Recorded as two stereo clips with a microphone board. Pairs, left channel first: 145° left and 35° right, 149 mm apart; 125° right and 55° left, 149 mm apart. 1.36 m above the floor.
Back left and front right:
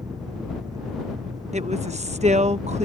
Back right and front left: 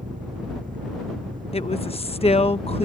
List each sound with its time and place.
0.0 s an engine running: 30° left
1.5 s a woman speaking: 75° right